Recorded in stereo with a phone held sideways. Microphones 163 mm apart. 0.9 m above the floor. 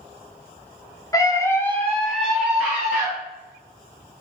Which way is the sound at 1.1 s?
20° left (ahead or behind).